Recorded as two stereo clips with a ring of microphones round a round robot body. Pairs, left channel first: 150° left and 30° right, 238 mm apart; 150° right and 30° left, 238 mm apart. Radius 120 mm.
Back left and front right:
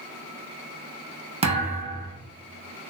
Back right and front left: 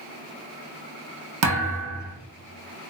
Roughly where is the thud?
Ahead left.